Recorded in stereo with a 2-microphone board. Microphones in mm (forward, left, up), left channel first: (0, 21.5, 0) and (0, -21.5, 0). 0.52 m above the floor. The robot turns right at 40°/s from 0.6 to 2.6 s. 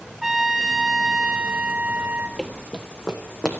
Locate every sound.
0.2 s a trumpet: 175° left, 1.1 m; by 2.3 s 115° right, 1.1 m
2.4 s running footsteps: 5° left (ahead or behind), 0.8 m; by 3.5 s 15° left (ahead or behind), 1.8 m